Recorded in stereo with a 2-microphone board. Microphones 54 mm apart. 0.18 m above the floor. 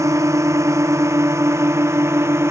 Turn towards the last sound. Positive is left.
turn(degrees=-55)  # may be behind; listen again after turning